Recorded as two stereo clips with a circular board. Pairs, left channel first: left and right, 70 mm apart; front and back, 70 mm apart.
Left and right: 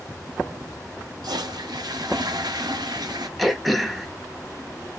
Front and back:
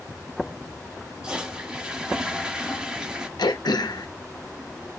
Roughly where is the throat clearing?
Ahead.